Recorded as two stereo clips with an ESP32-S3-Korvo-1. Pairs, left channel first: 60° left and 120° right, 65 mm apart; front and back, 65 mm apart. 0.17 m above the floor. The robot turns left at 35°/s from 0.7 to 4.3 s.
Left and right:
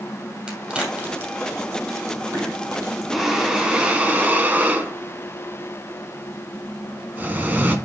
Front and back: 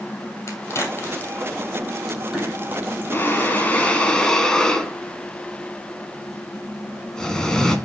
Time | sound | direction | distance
0.5 | a crack | 45° right | 2.5 m
3.1 | breathing | 30° right | 1.4 m